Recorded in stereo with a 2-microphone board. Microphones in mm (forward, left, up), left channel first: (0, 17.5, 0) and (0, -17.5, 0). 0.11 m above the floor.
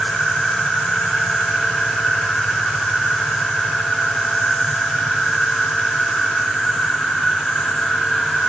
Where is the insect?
20° left (ahead or behind), 5 m.